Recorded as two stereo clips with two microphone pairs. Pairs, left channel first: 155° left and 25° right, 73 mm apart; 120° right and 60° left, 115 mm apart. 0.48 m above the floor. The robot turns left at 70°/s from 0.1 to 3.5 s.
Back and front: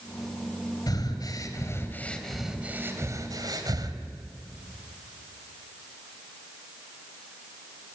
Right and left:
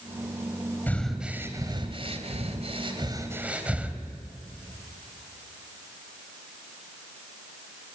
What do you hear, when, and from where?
0.9 s breathing: 170° left, 3 m; by 4.0 s 15° right, 3 m